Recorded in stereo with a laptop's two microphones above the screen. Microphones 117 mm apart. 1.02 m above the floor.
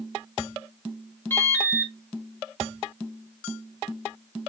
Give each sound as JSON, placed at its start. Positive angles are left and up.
{"t": 1.3, "sound": "an alarm", "side_deg": 20, "distance_m": 0.8}